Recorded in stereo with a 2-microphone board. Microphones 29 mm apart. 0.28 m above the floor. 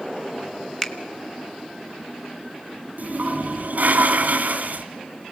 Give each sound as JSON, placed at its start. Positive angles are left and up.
{"t": 0.8, "sound": "a finger snap", "side_deg": 15, "distance_m": 1.2}
{"t": 3.0, "sound": "a toilet flushing", "side_deg": -60, "distance_m": 1.8}